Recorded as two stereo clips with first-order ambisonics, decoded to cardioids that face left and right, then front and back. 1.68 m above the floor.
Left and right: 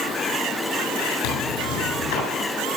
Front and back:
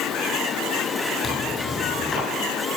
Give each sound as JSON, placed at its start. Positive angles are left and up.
{"t": 1.2, "sound": "tearing paper", "azimuth_deg": 85, "distance_m": 8.5}